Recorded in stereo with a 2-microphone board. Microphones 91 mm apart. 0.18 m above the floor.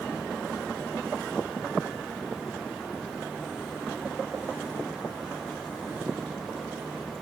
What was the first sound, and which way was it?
Only background noise.